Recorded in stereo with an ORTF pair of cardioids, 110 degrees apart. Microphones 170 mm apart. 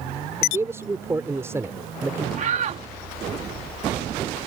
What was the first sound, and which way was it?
A man speaking, 15° right.